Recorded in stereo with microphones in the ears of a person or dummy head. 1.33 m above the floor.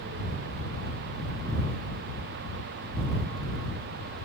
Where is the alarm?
I don't hear an alarm.